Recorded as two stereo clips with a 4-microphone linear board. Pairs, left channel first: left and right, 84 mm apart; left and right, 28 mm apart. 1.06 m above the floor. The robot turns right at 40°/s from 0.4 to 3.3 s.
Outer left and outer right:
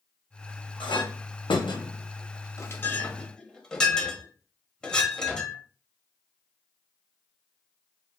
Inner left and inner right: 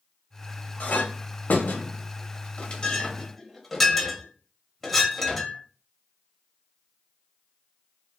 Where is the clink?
70° left (ahead or behind), 0.6 m; by 5.6 s 10° left (ahead or behind), 0.6 m.